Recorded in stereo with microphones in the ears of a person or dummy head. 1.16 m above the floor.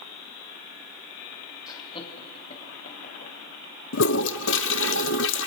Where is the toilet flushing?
70° left (ahead or behind), 0.9 m.